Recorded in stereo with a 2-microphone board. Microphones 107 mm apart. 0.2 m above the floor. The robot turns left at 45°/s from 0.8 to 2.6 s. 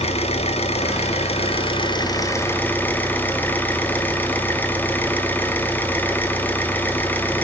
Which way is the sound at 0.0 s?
100° left.